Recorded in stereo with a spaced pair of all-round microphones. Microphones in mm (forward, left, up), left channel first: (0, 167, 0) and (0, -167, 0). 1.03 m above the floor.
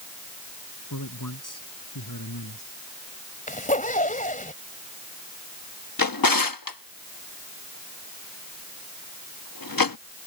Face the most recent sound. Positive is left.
turn(degrees=85)